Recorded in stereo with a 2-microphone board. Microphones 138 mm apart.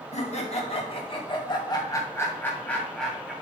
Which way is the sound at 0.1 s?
55° left (ahead or behind).